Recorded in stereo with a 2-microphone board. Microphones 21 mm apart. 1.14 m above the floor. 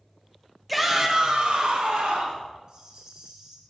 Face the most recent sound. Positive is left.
turn(degrees=-45)  # may be behind; listen again after turning